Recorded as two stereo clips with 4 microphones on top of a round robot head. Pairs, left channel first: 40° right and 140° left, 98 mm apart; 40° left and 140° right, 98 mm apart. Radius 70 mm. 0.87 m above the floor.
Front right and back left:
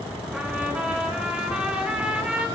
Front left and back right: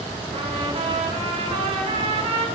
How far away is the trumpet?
About 2.5 m.